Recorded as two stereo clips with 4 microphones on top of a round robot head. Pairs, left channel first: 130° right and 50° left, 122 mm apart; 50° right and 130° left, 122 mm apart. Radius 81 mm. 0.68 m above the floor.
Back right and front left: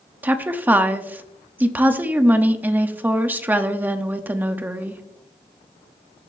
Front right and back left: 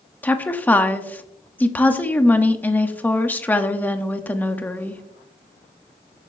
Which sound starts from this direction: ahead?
A woman speaking, at 0.2 s.